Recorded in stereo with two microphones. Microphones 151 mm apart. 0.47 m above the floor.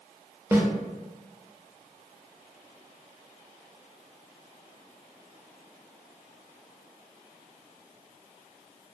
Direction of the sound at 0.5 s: 15° right (ahead or behind).